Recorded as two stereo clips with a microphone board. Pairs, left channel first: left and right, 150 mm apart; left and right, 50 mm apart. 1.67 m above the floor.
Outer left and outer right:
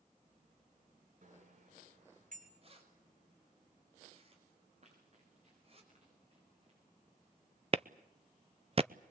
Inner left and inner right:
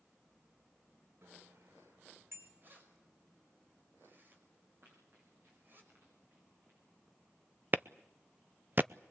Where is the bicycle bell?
60° right (ahead or behind), 3.5 m; by 2.5 s 65° right (ahead or behind), 5 m.